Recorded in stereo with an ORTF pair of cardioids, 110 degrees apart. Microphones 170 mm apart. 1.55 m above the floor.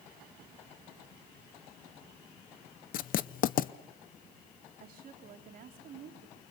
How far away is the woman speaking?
About 3.5 m.